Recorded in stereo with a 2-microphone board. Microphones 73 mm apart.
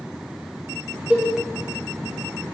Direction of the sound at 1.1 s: 20° right (ahead or behind).